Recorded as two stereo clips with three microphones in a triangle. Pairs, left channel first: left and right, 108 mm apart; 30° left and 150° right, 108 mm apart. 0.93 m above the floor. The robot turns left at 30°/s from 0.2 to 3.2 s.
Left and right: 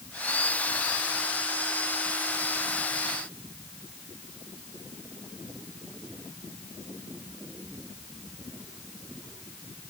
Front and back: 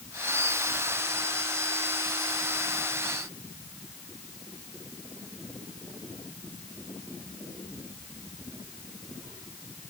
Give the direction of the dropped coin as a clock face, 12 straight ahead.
No dropped coin in this recording.